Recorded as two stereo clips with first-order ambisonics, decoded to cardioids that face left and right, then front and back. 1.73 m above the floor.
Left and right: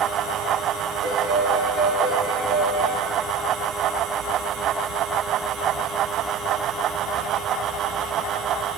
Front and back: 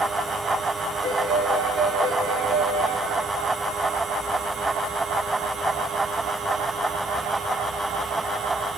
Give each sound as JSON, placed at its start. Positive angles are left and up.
{"t": 1.0, "sound": "a piano", "azimuth_deg": -120, "distance_m": 2.0}